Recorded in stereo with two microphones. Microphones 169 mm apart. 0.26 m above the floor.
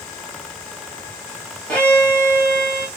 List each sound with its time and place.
1.7 s a violin: 5° left (ahead or behind), 2.5 m